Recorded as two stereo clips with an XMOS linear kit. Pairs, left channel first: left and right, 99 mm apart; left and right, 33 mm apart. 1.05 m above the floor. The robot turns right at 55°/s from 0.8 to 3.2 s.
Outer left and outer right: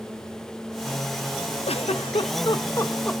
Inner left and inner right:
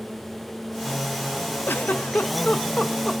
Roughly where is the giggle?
Left.